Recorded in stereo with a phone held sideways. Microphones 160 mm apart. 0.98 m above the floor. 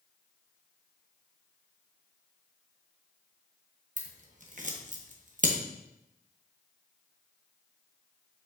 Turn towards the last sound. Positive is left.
turn(degrees=-50)  # may be behind; listen again after turning